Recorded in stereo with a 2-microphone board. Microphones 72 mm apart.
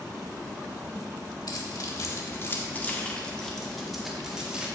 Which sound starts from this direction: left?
Keys jangling, at 1.5 s.